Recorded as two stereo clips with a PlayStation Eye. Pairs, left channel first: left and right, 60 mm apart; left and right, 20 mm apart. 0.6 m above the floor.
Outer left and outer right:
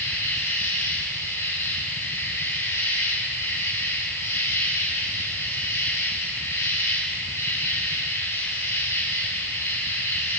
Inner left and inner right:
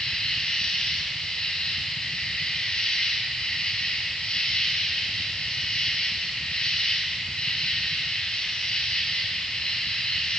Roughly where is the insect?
Left.